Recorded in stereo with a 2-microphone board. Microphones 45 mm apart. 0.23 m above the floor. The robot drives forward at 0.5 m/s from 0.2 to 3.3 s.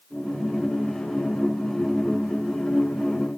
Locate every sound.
Only background noise.